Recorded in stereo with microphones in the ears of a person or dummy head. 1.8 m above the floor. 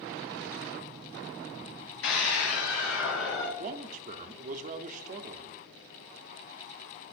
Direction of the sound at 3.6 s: 45° right (ahead or behind).